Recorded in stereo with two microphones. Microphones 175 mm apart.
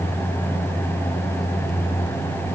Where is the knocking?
No knocking in this recording.